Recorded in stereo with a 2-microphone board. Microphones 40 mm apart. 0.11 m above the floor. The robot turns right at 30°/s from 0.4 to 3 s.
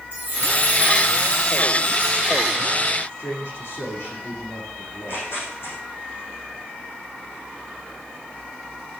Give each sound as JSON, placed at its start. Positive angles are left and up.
{"t": 0.1, "sound": "a chime", "azimuth_deg": -45, "distance_m": 4.5}
{"t": 3.1, "sound": "a man speaking", "side_deg": 75, "distance_m": 6.5}
{"t": 4.9, "sound": "tearing paper", "side_deg": 75, "distance_m": 6.5}